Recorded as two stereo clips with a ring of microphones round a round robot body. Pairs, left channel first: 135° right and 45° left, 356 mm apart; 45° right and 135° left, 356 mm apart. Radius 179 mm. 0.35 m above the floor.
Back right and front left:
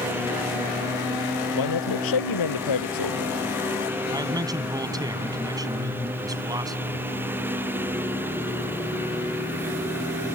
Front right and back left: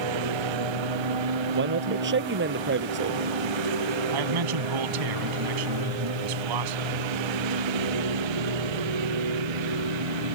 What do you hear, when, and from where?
0.0 s a lawn mower: 130° left
1.6 s a man speaking: 165° right
4.1 s a man speaking: 125° left